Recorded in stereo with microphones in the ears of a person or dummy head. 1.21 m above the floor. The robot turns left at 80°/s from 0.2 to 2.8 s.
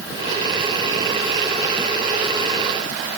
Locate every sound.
Only background noise.